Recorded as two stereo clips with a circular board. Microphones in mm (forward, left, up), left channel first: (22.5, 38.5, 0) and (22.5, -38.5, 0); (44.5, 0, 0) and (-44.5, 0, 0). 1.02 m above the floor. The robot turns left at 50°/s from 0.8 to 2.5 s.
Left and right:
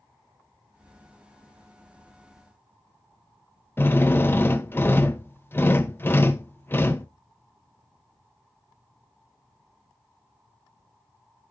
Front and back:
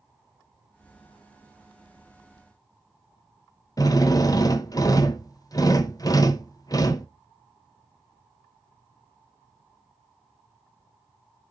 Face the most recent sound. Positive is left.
turn(degrees=35)